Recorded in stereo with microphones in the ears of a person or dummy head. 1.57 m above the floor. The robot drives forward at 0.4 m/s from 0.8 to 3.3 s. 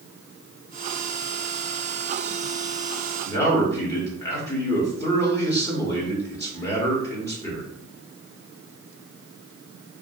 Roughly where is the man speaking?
Centre.